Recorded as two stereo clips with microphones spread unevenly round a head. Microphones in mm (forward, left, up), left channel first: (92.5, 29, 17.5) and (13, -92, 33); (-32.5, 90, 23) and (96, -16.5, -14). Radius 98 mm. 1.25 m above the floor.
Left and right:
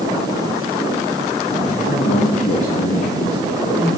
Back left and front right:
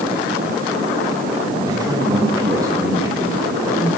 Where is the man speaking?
25° left, 1.2 m; by 3.9 s 35° left, 2.5 m.